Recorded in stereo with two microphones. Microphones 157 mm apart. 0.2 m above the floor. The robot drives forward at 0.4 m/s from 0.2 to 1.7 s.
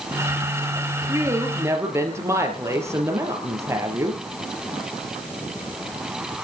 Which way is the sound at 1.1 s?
20° right (ahead or behind).